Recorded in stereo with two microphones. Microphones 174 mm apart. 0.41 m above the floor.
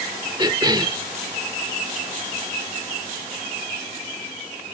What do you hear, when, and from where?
0.4 s a cough: 25° right (ahead or behind)